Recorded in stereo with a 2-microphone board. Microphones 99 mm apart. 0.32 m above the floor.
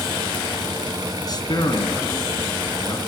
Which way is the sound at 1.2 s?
45° left (ahead or behind).